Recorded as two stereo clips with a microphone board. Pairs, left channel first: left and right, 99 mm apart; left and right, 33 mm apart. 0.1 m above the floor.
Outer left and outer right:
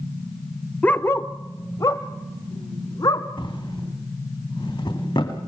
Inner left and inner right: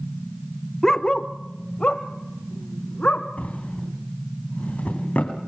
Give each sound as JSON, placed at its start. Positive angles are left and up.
{"t": 0.8, "sound": "a dog barking", "side_deg": 15, "distance_m": 0.7}
{"t": 3.4, "sound": "a drawer", "side_deg": 55, "distance_m": 3.5}